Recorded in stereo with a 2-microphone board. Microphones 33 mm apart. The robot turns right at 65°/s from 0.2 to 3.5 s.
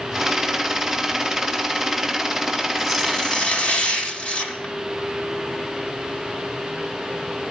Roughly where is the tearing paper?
Ahead.